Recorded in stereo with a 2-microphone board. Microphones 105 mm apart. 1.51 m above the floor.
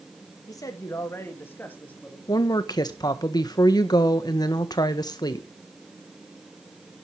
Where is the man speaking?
40° left (ahead or behind), 2 m; by 2.2 s 15° left (ahead or behind), 3 m.